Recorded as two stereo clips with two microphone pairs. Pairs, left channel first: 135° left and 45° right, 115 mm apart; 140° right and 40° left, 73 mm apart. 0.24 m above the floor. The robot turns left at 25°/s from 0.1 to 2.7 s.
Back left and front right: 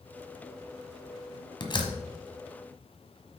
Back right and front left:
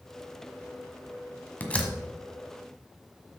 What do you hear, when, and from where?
1.6 s a door slam: 160° left, 1.2 m; by 1.9 s 150° left, 1.2 m